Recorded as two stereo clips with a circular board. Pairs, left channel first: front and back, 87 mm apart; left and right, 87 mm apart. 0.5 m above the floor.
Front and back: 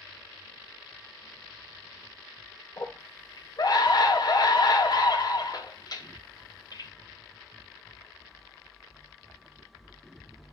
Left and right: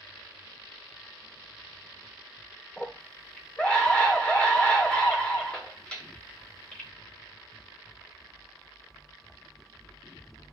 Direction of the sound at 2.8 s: 20° left.